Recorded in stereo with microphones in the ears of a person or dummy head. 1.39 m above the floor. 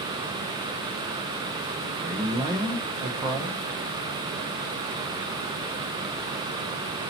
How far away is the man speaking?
About 0.7 m.